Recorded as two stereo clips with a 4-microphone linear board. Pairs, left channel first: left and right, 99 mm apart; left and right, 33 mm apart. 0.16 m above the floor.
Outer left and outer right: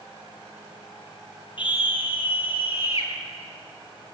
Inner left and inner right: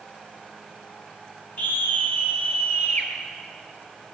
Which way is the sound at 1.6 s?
55° left (ahead or behind).